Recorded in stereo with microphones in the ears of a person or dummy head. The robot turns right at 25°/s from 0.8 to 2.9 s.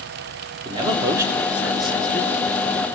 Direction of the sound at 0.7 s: 25° right (ahead or behind).